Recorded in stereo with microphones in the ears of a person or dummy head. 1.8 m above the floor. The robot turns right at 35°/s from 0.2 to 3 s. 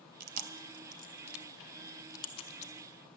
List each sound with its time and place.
0.2 s chewing: 45° right (ahead or behind), 0.7 m; by 2.7 s 40° left (ahead or behind), 0.7 m